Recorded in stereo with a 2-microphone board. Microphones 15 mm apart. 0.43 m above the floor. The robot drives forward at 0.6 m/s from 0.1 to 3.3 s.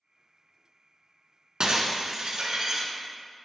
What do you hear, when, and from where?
1.6 s breaking glass: 85° right, 1.0 m; by 2.9 s 55° right (ahead or behind), 1.3 m